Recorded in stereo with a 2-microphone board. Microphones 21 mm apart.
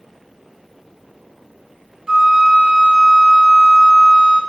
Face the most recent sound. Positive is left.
turn(degrees=-40)  # may be behind; listen again after turning